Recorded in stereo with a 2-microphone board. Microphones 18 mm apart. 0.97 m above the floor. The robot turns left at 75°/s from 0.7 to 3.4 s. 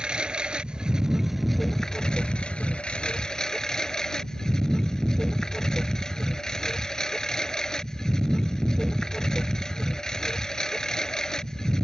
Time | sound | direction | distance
0.0 | a lawn mower | 120° right | ?